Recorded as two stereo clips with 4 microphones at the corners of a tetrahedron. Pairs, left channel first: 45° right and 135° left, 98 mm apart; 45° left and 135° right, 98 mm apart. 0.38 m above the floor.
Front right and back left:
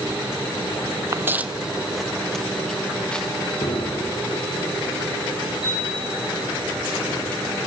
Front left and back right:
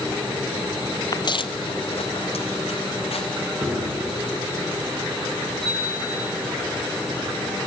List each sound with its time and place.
1.1 s footsteps: 80° left, 0.5 m; by 3.2 s 35° left, 2 m
3.6 s a piano: 45° right, 6.5 m
5.6 s a chime: 130° left, 9.5 m